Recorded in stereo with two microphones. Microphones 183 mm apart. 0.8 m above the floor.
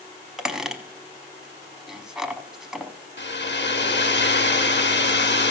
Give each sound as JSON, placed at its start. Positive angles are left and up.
{"t": 0.4, "sound": "a squeak", "side_deg": -5, "distance_m": 0.7}
{"t": 3.2, "sound": "a hair dryer", "side_deg": 80, "distance_m": 0.9}